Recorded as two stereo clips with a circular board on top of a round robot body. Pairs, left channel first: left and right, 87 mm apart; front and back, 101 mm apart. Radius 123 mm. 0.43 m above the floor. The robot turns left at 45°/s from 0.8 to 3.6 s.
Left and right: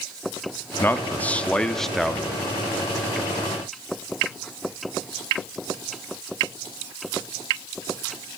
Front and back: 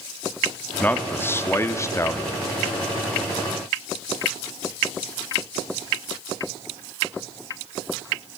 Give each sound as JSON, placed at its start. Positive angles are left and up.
{"t": 0.8, "sound": "a man speaking", "azimuth_deg": 55, "distance_m": 1.0}